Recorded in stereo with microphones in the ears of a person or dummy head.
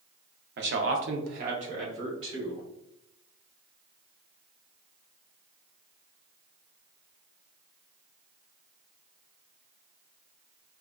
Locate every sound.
0.6 s a man speaking: 45° right (ahead or behind), 0.5 m; by 2.6 s 25° right (ahead or behind), 1.3 m